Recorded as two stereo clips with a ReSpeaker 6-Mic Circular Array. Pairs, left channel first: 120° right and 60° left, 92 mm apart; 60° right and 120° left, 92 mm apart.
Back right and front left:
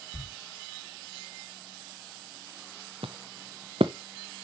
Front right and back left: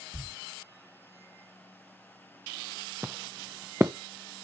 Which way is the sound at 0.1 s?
145° right.